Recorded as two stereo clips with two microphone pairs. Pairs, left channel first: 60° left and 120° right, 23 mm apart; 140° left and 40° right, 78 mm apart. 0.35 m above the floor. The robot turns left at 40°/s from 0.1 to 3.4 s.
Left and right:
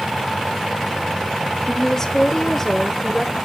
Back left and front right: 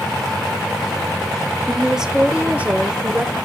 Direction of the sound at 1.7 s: 45° left.